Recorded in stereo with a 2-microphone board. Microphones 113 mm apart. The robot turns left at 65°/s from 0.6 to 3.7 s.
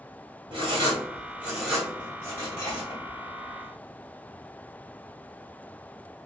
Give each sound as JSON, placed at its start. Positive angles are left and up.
{"t": 0.5, "sound": "writing", "side_deg": -45, "distance_m": 1.8}